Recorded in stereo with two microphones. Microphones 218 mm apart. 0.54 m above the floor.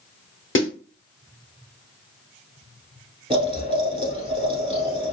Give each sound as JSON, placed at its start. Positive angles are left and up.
{"t": 0.6, "sound": "a snare drum", "side_deg": 65, "distance_m": 1.1}
{"t": 3.3, "sound": "boiling", "side_deg": -25, "distance_m": 1.4}